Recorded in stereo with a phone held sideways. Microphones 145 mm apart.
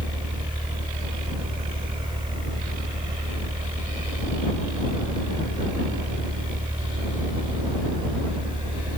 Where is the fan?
35° right (ahead or behind).